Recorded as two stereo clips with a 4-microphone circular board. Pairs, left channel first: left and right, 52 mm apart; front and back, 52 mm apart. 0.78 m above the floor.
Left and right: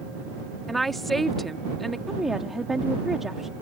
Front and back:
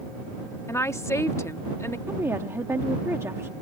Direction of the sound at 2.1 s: 175° right.